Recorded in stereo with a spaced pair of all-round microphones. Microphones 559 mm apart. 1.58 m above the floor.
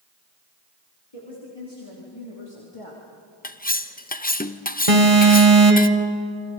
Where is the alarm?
75° right (ahead or behind), 2 m.